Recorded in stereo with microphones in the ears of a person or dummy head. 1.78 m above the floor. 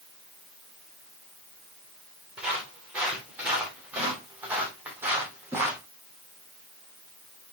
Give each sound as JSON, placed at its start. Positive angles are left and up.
{"t": 2.4, "sound": "footsteps", "side_deg": -5, "distance_m": 5.5}